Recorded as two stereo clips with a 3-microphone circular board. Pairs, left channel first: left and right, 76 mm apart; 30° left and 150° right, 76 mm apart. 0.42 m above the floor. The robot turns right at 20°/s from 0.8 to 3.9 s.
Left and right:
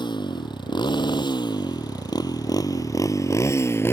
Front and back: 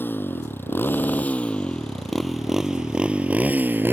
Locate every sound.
0.0 s a motorcycle: 90° left; by 3.9 s 145° left